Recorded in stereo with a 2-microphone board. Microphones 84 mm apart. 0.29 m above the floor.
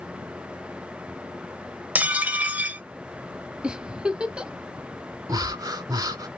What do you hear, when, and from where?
1.9 s dishes clattering: 15° right (ahead or behind), 0.6 m
3.6 s a giggle: 10° right (ahead or behind), 0.5 m
5.3 s breathing: 45° right (ahead or behind), 0.7 m